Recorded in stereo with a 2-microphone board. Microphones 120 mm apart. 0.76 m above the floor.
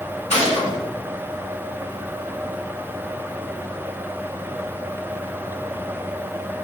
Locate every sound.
0.3 s a gunshot: 65° left (ahead or behind), 1.7 m